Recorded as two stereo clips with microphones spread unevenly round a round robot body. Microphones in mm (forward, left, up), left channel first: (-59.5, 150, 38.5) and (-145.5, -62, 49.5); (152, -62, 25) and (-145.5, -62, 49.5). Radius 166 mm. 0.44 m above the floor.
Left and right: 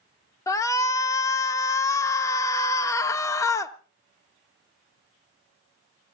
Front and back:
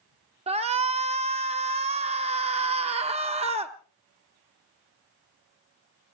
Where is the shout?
125° left, 0.7 m.